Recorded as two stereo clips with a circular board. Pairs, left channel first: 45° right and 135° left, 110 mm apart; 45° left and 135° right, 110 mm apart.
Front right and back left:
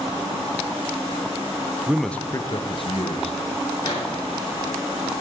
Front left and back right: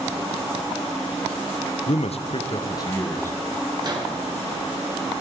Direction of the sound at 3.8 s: 90° right.